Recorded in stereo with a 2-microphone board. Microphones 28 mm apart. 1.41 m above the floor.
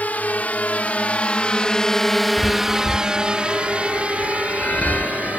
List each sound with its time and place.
0.0 s a drone: 65° left (ahead or behind); by 5.4 s 60° right (ahead or behind)
2.4 s a chime: 80° left